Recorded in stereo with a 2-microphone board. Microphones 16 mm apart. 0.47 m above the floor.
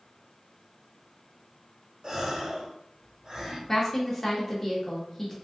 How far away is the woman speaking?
About 0.7 m.